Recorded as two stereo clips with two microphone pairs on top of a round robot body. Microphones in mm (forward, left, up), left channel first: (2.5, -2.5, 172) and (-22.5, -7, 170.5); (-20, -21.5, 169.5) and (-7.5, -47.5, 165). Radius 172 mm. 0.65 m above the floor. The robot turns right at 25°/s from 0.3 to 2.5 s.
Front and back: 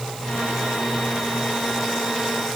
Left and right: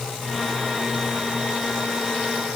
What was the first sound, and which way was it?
Only background noise.